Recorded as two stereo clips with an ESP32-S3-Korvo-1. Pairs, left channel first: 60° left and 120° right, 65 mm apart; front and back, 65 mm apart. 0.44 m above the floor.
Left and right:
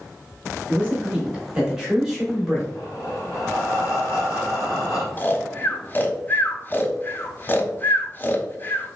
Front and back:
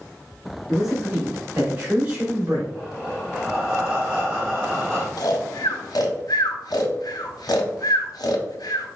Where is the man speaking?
105° right, 1.3 m; by 2.6 s 145° left, 1.5 m.